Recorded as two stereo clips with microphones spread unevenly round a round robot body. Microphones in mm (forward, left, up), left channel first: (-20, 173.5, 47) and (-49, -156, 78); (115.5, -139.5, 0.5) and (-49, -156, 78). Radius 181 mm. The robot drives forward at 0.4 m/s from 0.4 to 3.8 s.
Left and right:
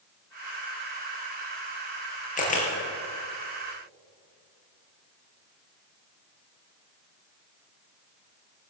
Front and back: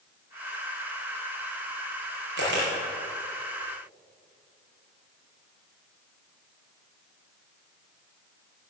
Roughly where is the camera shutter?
Behind left.